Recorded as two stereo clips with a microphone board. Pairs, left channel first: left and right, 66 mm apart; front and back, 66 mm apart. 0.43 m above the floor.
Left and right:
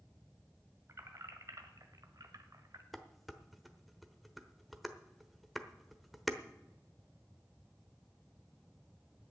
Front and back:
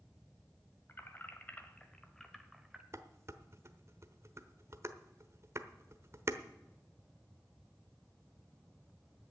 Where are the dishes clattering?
Straight behind, 1.0 m.